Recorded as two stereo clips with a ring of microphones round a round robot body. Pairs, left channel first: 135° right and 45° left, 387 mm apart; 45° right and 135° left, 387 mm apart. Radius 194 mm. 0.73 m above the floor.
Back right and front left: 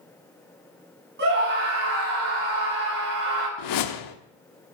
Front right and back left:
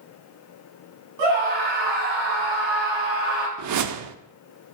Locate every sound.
1.2 s a scream: 110° left, 7.5 m
3.6 s a whoosh: 175° right, 0.9 m